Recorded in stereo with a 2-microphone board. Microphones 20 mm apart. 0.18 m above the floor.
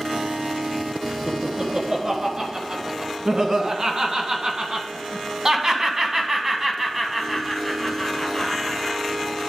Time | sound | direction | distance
1.3 | laughter | 40° right (ahead or behind) | 3 m